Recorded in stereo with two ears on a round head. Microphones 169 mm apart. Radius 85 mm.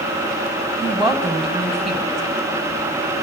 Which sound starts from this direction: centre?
A woman speaking, at 0.8 s.